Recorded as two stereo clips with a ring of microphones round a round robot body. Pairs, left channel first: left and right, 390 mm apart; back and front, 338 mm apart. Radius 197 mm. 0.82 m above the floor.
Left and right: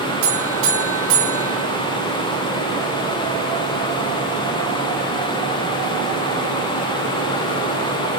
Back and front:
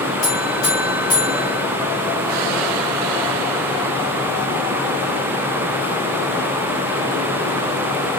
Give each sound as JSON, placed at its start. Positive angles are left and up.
{"t": 0.2, "sound": "a buzzer", "azimuth_deg": -110, "distance_m": 2.5}